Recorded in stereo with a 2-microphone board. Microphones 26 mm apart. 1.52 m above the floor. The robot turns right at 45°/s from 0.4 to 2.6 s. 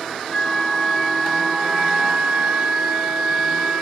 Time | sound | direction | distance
0.3 | a flute | 150° left | 0.8 m